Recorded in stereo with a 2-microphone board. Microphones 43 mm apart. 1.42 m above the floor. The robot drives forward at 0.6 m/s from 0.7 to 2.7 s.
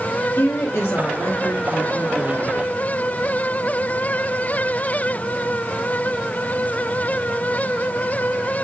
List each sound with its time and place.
0.4 s a woman speaking: 80° left, 2.5 m; by 2.6 s 70° left (ahead or behind), 2.5 m